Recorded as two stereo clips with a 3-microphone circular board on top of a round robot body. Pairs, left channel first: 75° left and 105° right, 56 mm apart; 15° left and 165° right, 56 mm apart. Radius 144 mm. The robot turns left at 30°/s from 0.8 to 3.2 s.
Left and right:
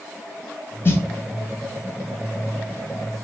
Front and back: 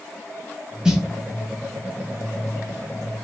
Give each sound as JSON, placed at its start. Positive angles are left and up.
{"t": 0.8, "sound": "a snare drum", "azimuth_deg": 120, "distance_m": 1.2}